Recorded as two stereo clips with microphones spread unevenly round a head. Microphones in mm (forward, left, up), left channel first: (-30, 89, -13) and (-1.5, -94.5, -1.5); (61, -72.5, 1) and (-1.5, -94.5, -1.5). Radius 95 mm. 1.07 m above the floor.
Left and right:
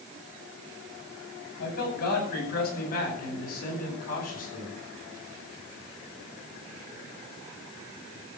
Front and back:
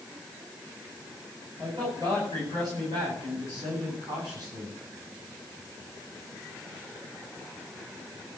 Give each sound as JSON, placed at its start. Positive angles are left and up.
{"t": 1.6, "sound": "a man speaking", "azimuth_deg": 135, "distance_m": 8.5}